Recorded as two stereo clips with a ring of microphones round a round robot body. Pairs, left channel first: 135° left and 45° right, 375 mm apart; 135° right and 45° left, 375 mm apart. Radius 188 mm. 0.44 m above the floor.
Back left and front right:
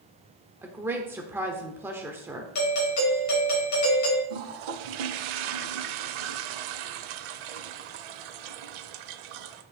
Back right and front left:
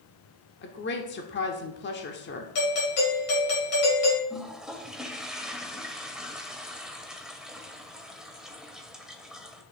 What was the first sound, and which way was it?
A woman speaking, 125° right.